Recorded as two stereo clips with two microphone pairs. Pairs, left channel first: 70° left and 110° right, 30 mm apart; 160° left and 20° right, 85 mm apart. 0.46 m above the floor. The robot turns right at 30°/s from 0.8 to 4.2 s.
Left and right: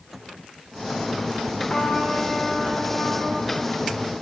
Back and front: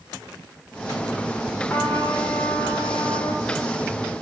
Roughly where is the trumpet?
Left.